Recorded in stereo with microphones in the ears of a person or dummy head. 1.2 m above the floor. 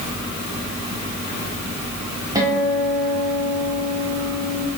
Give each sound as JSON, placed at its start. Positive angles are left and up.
{"t": 2.4, "sound": "a guitar", "side_deg": -15, "distance_m": 1.1}